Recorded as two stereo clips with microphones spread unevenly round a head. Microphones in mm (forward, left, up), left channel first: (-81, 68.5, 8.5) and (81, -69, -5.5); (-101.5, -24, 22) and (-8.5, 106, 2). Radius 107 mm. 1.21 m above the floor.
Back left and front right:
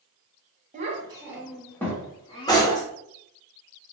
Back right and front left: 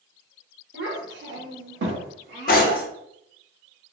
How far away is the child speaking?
About 0.8 m.